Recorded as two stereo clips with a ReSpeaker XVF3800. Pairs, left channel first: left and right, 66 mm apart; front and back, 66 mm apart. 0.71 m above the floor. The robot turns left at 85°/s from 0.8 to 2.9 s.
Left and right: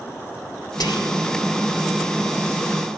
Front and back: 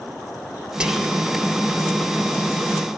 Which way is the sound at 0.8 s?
105° left.